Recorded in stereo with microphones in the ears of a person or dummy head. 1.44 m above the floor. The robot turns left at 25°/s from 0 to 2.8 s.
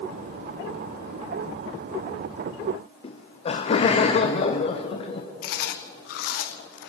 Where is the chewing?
55° left (ahead or behind), 0.7 m.